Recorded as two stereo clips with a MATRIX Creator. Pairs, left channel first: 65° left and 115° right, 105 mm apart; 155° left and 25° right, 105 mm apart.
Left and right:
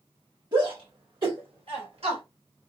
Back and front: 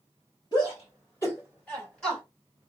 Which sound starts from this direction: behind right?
A shout, at 0.5 s.